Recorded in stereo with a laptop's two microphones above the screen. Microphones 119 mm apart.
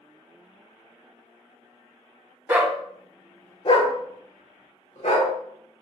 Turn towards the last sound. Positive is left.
turn(degrees=65)  # may be behind; listen again after turning